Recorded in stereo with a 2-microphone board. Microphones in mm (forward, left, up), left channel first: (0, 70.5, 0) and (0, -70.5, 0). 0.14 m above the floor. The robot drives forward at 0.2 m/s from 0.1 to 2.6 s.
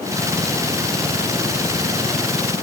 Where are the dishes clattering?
I don't hear dishes clattering.